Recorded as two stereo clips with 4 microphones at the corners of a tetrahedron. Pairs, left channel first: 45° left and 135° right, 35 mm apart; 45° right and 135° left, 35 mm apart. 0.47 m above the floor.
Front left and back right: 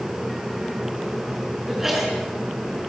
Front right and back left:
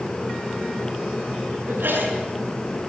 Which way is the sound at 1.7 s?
145° left.